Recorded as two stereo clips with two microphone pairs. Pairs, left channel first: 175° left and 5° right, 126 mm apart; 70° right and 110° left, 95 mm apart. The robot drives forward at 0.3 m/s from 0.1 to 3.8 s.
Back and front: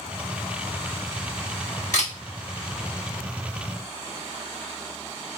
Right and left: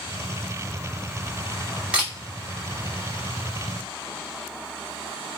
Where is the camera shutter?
170° right, 1.2 m.